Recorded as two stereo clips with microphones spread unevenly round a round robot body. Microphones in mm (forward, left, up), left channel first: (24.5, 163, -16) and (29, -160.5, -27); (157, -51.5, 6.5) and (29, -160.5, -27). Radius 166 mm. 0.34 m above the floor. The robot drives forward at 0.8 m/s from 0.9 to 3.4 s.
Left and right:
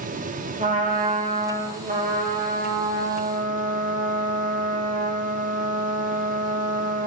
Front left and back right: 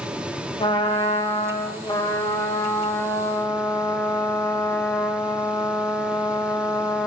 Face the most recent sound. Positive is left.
turn(degrees=-30)